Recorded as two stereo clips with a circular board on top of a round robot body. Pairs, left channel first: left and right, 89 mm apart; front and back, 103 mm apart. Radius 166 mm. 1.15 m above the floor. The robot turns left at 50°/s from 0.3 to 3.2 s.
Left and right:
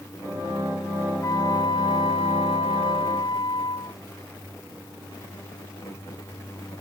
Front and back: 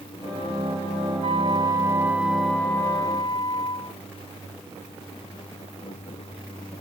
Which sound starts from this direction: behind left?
A flute, at 1.2 s.